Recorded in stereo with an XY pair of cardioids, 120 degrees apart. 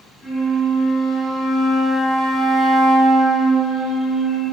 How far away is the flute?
About 1.6 m.